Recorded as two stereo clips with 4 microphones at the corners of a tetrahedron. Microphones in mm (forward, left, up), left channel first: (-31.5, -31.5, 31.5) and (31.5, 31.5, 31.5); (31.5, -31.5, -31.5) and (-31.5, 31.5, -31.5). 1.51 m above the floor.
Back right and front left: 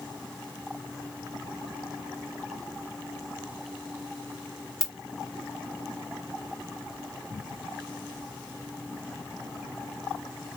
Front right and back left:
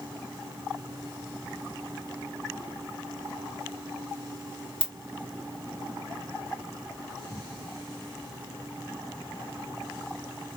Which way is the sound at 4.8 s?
140° left.